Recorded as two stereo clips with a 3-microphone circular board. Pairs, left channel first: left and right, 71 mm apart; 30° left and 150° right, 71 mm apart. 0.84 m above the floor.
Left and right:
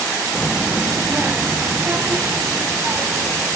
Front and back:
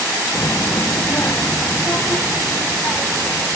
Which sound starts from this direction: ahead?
A child speaking, at 0.3 s.